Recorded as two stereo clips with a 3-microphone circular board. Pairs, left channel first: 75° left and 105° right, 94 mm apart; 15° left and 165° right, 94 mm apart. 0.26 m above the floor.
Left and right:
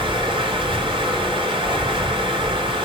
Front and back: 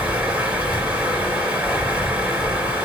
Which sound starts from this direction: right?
Running water, at 0.0 s.